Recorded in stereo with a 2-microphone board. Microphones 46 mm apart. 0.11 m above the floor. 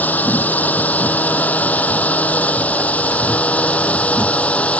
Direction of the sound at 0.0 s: 40° left (ahead or behind).